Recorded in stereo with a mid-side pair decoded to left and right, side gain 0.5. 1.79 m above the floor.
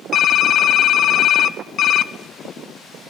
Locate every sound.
0.1 s typing on a keyboard: 60° left, 0.5 m